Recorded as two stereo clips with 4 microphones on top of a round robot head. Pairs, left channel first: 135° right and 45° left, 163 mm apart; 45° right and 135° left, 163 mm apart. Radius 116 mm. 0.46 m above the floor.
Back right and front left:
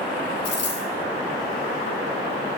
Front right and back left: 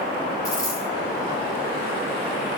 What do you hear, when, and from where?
0.5 s a dropped coin: 115° right, 5.5 m